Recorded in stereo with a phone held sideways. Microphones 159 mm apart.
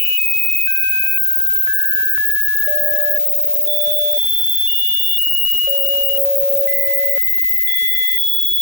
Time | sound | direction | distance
0.0 | an insect | 90° left | 6.5 m